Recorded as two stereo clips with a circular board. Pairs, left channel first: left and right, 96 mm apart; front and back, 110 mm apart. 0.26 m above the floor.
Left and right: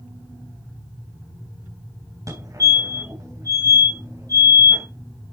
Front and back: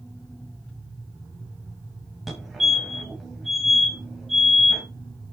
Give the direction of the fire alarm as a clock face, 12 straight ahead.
3 o'clock.